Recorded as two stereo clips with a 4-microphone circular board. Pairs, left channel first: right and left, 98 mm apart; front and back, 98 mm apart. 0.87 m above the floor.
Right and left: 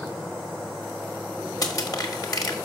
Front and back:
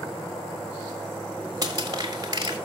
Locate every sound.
1.6 s crushing: 135° right, 1.6 m